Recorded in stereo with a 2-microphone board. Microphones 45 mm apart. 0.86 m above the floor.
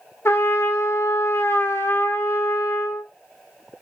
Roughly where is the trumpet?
Left.